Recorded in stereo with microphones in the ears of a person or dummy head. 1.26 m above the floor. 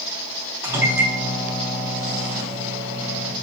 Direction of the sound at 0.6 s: 10° right (ahead or behind).